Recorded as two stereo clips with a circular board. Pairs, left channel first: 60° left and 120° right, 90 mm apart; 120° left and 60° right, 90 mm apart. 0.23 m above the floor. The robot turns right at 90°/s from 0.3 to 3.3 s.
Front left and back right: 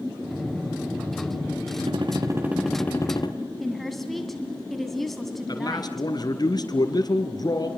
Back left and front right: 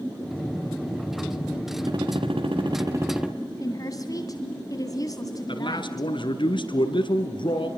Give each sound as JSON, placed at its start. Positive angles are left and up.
{"t": 1.9, "sound": "a gunshot", "azimuth_deg": -105, "distance_m": 2.5}
{"t": 3.6, "sound": "a woman speaking", "azimuth_deg": 150, "distance_m": 2.0}
{"t": 5.5, "sound": "a man speaking", "azimuth_deg": 100, "distance_m": 3.5}